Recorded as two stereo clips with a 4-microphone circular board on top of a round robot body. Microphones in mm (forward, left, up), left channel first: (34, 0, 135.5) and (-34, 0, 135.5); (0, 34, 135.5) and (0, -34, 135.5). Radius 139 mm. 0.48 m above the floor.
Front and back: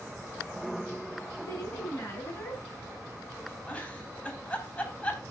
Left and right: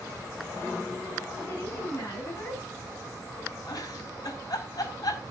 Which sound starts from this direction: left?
A giggle, at 3.7 s.